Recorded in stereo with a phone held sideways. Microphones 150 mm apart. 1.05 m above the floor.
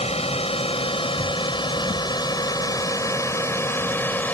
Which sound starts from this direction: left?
A drone, at 0.0 s.